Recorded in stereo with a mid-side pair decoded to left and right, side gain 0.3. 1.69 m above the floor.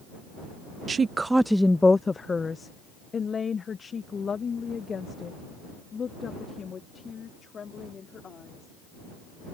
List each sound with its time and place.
0.9 s a woman speaking: 60° right; by 8.7 s 65° left